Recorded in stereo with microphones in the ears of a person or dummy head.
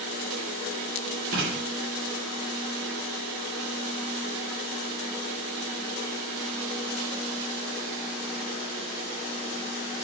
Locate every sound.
1.3 s writing: 75° right (ahead or behind), 6 m